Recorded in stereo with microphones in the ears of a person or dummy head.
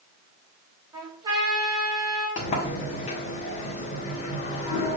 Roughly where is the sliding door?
Left.